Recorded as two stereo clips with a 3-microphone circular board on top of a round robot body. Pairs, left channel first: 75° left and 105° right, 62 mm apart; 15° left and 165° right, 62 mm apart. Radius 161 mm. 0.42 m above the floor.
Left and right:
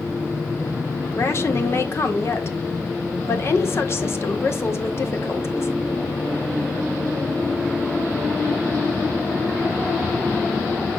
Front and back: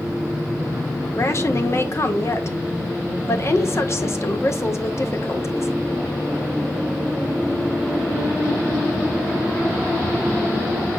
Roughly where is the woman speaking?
Ahead left.